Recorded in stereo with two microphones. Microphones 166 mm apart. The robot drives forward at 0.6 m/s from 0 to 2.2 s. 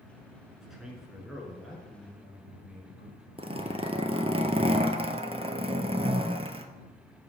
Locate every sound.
0.6 s a man speaking: 5° right (ahead or behind), 1.6 m
3.4 s a zipper: 35° right (ahead or behind), 0.6 m